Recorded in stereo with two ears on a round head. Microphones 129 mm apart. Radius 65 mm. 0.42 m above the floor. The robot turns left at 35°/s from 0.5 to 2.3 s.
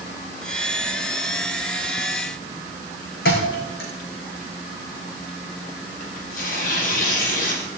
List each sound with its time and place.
3.2 s a thud: 70° left (ahead or behind), 4.5 m
6.0 s tearing paper: 60° left (ahead or behind), 3.5 m